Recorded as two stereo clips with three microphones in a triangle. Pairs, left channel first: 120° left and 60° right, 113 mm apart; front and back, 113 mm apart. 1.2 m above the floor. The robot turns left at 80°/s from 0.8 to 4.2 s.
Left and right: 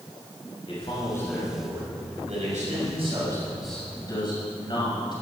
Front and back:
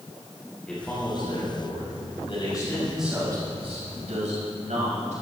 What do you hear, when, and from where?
0.7 s a man speaking: 80° left, 6.5 m; by 5.1 s 170° left, 6.5 m